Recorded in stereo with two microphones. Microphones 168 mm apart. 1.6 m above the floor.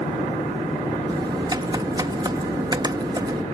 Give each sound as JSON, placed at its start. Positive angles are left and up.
{"t": 1.1, "sound": "typing on a keyboard", "side_deg": -25}